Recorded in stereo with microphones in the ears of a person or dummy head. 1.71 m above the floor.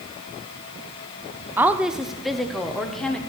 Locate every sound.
1.6 s a woman speaking: 10° right (ahead or behind), 0.5 m; by 3.2 s 5° left (ahead or behind), 1.5 m